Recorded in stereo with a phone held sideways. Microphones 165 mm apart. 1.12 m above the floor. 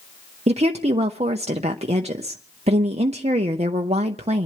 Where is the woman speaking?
40° right (ahead or behind), 0.9 m.